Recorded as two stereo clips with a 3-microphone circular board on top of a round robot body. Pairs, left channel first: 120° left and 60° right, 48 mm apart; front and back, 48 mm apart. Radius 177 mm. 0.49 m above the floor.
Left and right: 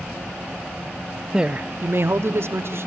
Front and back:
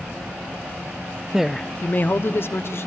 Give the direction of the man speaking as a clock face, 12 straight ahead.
4 o'clock.